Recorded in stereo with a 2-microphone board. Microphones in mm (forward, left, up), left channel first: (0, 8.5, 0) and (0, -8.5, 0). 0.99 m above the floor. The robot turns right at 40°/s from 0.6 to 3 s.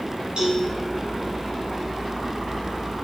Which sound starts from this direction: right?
A cowbell, at 0.4 s.